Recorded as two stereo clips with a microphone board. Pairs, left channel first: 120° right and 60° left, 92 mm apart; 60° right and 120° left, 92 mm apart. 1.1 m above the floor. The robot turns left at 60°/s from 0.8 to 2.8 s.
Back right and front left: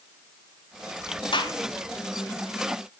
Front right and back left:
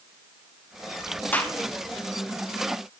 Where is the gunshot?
130° right, 0.7 m; by 1.6 s 140° right, 0.7 m.